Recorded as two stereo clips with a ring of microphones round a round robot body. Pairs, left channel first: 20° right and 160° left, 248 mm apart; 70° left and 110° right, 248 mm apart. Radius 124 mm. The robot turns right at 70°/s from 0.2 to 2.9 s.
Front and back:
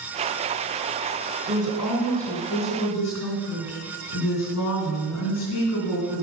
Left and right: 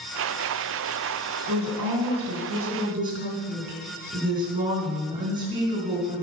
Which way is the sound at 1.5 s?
140° right.